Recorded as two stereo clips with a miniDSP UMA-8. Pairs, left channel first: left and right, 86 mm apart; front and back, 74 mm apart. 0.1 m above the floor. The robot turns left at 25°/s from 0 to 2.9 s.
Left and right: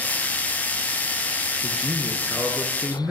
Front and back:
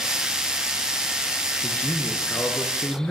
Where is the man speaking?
20° right, 1.1 m; by 3.1 s 50° right, 1.1 m.